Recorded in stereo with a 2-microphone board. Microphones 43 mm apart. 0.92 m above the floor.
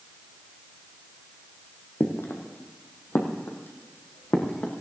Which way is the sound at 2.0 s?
60° left (ahead or behind).